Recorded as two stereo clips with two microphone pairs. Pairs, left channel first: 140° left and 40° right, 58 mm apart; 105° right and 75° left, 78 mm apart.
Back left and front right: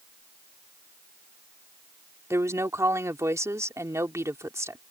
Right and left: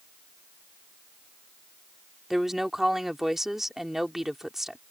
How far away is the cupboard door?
No cupboard door in this recording.